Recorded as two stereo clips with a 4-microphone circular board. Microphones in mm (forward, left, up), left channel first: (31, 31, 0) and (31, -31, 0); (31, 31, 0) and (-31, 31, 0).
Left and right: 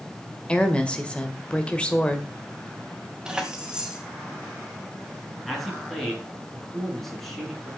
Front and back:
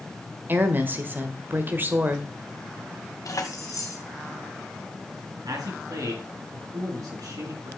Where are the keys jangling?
15° right, 2.0 m.